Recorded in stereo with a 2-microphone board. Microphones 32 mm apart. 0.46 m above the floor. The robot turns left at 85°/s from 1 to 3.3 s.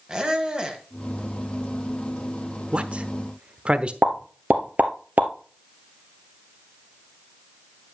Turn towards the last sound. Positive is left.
turn(degrees=-65)  # may be behind; listen again after turning